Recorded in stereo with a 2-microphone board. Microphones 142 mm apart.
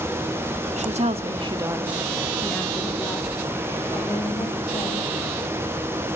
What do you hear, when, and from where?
0.8 s a woman speaking: 55° right (ahead or behind), 1.9 m; by 5.1 s 35° left (ahead or behind), 5.5 m